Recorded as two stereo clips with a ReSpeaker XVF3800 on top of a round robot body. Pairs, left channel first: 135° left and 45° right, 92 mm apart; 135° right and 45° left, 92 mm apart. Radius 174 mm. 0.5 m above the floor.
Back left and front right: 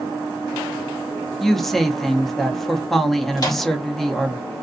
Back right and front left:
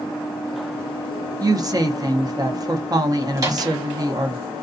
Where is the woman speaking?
50° left, 0.9 m.